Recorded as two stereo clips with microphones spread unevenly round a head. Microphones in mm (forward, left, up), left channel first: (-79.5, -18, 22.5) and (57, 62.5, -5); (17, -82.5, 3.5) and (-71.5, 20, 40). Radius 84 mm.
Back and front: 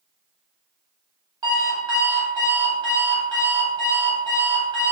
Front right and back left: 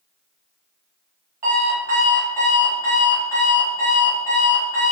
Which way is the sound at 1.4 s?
95° left.